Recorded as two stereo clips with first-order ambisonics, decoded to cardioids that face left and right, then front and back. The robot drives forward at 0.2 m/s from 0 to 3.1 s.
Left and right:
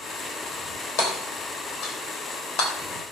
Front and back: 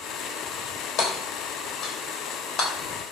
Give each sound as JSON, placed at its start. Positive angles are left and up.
{"t": 1.0, "sound": "hammering", "azimuth_deg": 60, "distance_m": 3.0}